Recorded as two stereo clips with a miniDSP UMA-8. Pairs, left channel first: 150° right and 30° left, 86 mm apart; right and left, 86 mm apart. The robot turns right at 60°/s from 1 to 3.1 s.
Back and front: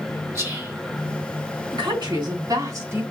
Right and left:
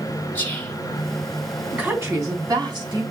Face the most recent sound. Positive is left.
turn(degrees=95)